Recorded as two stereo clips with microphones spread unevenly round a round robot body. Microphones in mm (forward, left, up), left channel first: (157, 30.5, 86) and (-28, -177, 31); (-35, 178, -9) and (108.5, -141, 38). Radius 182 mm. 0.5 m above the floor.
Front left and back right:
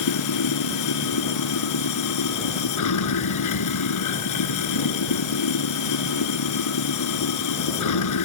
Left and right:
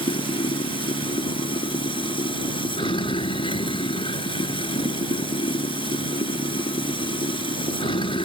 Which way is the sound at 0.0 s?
35° left.